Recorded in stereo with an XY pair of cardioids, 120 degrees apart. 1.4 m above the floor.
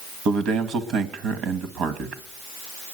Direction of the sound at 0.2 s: 70° right.